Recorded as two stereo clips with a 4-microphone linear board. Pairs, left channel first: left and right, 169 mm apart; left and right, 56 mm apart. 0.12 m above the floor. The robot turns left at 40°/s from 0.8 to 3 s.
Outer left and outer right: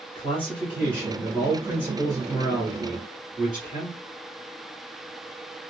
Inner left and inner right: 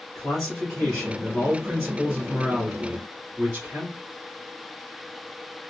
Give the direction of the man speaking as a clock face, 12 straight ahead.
11 o'clock.